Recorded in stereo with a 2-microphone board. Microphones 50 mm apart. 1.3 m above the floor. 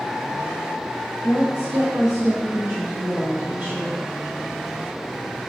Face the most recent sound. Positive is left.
turn(degrees=-30)  # may be behind; listen again after turning